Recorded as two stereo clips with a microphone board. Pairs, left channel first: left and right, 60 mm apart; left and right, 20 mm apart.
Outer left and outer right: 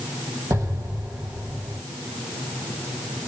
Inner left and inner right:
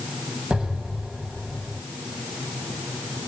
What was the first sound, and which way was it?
An explosion, 60° right (ahead or behind).